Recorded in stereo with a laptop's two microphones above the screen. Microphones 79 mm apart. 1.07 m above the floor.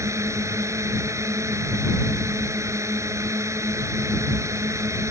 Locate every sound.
0.0 s a drone: 40° right (ahead or behind)